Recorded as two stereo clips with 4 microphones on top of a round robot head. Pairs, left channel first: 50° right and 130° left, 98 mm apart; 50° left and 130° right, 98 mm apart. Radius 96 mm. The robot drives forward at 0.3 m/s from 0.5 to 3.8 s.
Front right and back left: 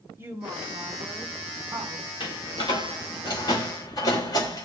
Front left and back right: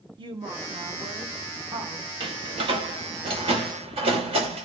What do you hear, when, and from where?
0.2 s a woman speaking: 165° right, 2.0 m
2.2 s a door slam: 95° right, 2.5 m; by 4.6 s 105° right, 2.5 m